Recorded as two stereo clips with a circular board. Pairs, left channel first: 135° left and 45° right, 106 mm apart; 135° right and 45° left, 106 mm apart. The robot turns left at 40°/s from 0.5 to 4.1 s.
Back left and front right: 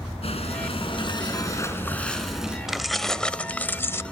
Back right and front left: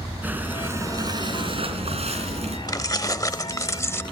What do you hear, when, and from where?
0.2 s breathing: 115° left, 3.5 m; by 2.6 s 35° left, 3.5 m
2.7 s keys jangling: 130° right, 0.6 m; by 4.0 s straight behind, 0.6 m